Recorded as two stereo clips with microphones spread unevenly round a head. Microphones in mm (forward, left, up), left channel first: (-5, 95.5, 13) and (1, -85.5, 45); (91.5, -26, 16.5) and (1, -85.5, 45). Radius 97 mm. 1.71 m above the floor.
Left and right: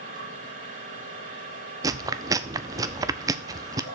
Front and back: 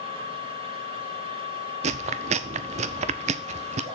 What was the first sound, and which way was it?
A machine running, 130° right.